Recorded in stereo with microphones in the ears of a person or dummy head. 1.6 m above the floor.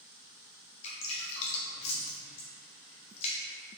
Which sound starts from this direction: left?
Dripping, at 0.8 s.